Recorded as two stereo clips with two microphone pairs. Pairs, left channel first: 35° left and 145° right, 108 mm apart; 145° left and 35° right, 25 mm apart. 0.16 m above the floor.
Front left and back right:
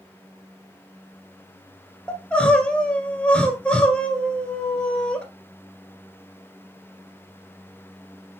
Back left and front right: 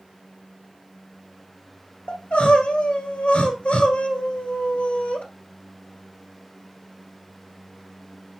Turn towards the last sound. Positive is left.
turn(degrees=115)